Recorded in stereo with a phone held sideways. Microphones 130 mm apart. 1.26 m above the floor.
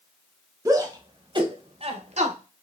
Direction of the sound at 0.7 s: 25° right (ahead or behind).